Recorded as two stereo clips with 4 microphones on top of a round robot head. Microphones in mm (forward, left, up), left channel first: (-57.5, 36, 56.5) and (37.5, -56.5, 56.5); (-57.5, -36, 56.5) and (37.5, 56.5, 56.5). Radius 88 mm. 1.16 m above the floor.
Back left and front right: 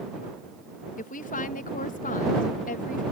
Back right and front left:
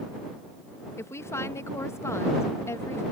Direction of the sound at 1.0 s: 155° left.